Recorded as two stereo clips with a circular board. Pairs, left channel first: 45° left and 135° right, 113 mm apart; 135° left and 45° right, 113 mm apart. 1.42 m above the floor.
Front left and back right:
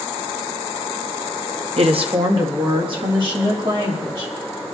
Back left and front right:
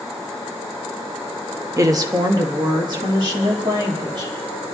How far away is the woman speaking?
About 0.9 m.